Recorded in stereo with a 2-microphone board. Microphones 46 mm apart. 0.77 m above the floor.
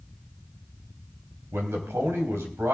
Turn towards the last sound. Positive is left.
turn(degrees=-65)  # may be behind; listen again after turning